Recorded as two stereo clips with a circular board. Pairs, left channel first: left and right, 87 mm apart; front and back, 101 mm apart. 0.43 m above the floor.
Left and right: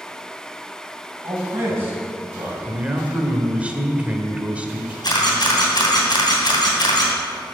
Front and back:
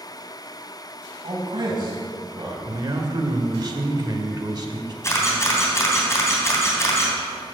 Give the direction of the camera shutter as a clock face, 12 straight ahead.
10 o'clock.